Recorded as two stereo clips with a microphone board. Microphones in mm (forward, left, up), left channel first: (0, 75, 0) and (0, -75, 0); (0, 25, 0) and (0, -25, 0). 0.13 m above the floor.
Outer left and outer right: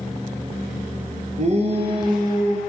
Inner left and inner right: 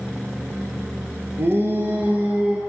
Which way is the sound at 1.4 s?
50° right (ahead or behind).